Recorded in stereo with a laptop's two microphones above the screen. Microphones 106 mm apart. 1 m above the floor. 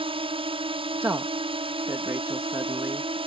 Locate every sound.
0.0 s a drone: 60° right (ahead or behind)
1.0 s a woman speaking: 25° right (ahead or behind)